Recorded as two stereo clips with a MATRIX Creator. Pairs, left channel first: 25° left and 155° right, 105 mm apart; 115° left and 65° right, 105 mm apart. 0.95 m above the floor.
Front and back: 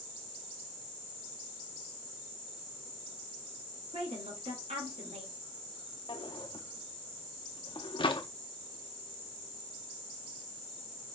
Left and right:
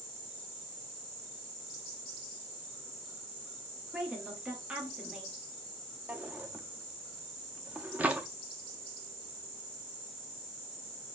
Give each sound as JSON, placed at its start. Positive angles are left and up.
{"t": 3.9, "sound": "a woman speaking", "azimuth_deg": -150, "distance_m": 1.4}
{"t": 6.1, "sound": "a drawer", "azimuth_deg": 5, "distance_m": 0.6}